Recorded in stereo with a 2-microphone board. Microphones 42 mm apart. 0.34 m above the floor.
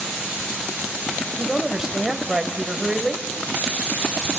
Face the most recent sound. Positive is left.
turn(degrees=-5)  # may be behind; listen again after turning